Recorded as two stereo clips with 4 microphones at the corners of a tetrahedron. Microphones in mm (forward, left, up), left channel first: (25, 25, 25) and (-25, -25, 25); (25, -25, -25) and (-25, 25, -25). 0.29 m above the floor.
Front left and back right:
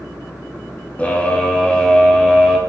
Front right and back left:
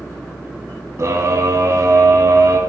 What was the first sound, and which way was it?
A scream, 110° left.